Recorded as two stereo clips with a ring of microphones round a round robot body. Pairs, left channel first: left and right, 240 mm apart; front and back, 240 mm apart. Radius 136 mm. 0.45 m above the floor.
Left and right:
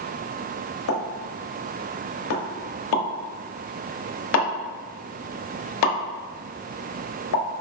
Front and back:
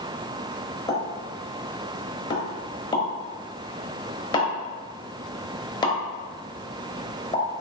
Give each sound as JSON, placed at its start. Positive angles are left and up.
{"t": 0.9, "sound": "a pop", "azimuth_deg": 75, "distance_m": 0.9}